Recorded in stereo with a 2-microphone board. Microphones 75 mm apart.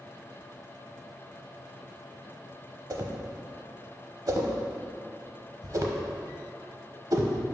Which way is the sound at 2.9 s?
50° right (ahead or behind).